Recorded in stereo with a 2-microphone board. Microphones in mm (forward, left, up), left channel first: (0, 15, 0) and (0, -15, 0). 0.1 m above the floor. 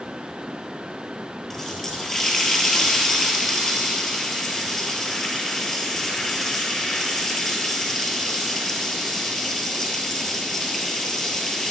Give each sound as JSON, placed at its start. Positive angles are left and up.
{"t": 1.5, "sound": "a running tap", "side_deg": 15, "distance_m": 1.5}